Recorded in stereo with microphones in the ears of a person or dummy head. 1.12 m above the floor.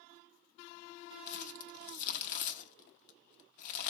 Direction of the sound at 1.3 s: 45° left (ahead or behind).